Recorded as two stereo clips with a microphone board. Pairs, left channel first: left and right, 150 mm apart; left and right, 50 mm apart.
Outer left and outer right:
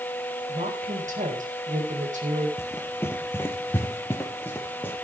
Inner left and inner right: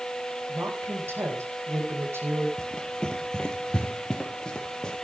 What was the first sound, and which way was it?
A woman speaking, 60° right (ahead or behind).